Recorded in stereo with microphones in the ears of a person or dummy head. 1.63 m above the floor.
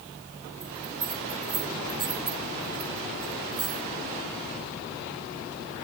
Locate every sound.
0.6 s a bell: 30° right (ahead or behind), 2.5 m